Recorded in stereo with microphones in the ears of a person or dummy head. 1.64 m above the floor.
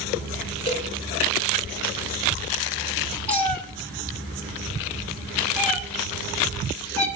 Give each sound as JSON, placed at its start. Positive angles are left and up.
{"t": 0.7, "sound": "a cowbell", "side_deg": 30, "distance_m": 3.5}
{"t": 3.3, "sound": "a cat meowing", "side_deg": 10, "distance_m": 2.0}